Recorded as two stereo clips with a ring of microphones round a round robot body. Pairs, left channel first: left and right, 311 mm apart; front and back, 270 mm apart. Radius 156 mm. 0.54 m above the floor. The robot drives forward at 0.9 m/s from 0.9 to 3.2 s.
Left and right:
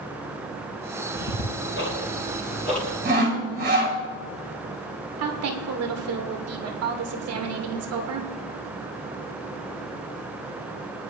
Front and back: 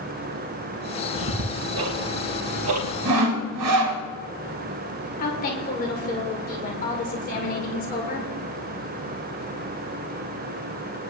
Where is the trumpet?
I don't hear a trumpet.